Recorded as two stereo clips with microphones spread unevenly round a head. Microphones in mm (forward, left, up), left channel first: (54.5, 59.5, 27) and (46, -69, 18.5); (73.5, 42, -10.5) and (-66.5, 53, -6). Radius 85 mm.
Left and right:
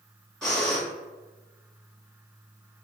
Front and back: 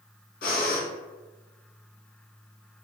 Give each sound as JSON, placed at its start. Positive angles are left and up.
{"t": 0.4, "sound": "breathing", "azimuth_deg": 0, "distance_m": 1.9}